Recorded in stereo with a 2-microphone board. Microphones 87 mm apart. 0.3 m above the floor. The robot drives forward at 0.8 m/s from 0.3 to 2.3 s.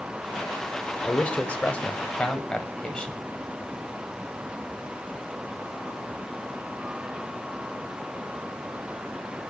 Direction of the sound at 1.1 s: 15° left (ahead or behind).